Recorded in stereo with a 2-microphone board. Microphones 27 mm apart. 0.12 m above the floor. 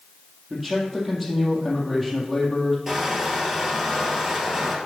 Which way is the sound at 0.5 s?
5° right (ahead or behind).